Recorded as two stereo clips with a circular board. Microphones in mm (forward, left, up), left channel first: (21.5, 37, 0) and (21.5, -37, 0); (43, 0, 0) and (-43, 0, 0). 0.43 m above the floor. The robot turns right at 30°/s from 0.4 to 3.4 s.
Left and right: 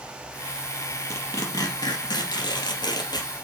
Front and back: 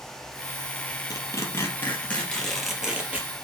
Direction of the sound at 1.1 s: 45° left.